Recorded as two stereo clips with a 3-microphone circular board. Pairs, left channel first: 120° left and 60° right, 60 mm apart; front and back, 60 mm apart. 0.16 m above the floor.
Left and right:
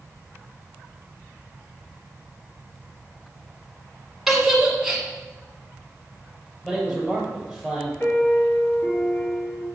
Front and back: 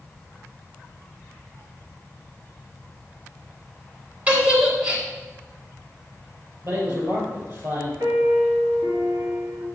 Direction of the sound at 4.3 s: 145° right.